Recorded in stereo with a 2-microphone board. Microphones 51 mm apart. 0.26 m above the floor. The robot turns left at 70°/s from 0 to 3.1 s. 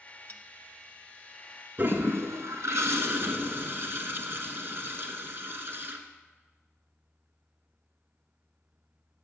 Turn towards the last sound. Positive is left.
turn(degrees=-130)